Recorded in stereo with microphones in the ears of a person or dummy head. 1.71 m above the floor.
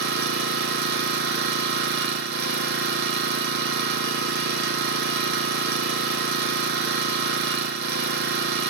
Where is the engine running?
60° right (ahead or behind), 0.9 m.